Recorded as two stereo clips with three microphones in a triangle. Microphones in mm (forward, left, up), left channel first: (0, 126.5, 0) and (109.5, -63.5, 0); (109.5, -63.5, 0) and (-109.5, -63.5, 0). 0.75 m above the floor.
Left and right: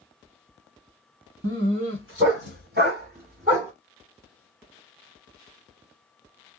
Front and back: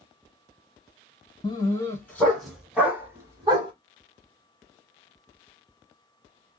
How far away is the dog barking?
About 1.8 m.